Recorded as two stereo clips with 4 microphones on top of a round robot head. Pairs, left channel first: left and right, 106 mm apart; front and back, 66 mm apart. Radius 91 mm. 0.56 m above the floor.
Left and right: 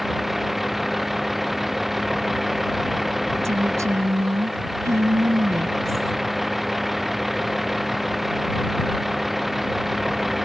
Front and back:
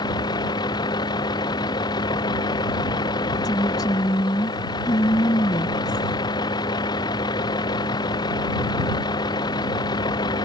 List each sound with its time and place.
0.0 s a vehicle: straight ahead
3.4 s a woman speaking: 30° right